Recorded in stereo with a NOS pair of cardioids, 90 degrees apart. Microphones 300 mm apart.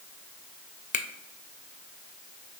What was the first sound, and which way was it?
A finger snap, 30° left.